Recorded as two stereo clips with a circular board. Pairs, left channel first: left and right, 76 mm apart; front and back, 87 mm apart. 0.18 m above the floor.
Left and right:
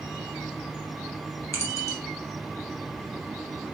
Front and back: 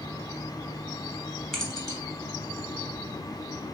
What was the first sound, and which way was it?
Keys jangling, 85° left.